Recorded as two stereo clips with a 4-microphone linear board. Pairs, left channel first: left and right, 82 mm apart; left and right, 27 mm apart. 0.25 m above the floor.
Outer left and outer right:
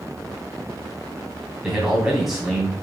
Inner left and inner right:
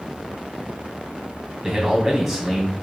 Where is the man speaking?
5° right (ahead or behind), 2 m.